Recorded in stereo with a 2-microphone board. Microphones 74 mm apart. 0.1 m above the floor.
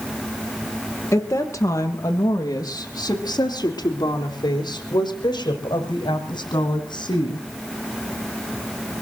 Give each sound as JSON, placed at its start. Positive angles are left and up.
{"t": 1.1, "sound": "a woman speaking", "side_deg": 35, "distance_m": 3.0}